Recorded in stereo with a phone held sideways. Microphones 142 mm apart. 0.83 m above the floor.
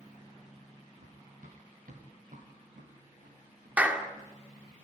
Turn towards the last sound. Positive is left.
turn(degrees=-10)  # may be behind; listen again after turning